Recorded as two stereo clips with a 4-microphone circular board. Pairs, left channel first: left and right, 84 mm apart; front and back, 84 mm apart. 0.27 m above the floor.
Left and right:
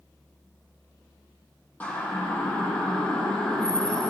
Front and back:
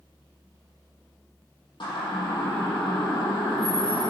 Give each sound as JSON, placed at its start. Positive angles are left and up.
{"t": 1.8, "sound": "a siren", "azimuth_deg": 20, "distance_m": 7.5}